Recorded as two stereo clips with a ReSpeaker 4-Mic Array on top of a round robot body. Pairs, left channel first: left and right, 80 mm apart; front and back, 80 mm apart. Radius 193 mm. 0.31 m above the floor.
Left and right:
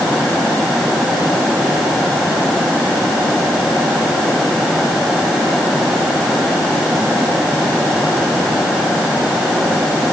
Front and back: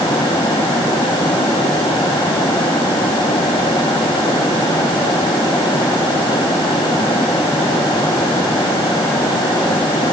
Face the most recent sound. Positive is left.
No sound to turn to.